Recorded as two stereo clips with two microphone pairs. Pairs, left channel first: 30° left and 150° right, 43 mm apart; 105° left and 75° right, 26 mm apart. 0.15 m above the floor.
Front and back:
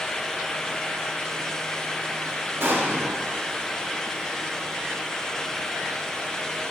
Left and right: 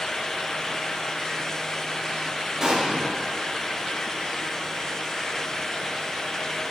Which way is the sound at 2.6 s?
140° right.